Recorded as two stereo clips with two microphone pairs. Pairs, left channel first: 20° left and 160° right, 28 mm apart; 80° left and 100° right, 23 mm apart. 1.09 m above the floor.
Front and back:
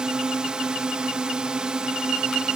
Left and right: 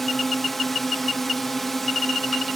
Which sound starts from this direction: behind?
A drone, at 0.0 s.